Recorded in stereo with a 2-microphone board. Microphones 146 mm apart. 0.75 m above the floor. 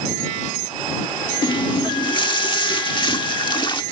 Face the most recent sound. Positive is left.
turn(degrees=35)  # may be behind; listen again after turning